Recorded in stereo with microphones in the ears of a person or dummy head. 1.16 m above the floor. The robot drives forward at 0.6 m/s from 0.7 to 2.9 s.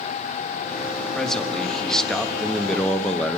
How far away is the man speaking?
About 1.9 m.